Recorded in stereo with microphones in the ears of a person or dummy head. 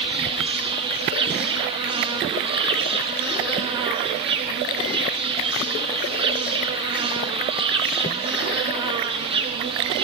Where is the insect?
30° right (ahead or behind), 0.8 m.